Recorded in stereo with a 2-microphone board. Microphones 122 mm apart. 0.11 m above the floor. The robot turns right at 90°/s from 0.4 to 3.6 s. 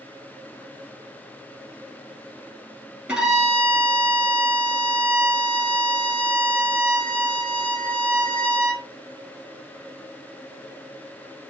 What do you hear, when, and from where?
3.1 s a violin: 15° right, 1.3 m; by 8.8 s 30° left, 1.3 m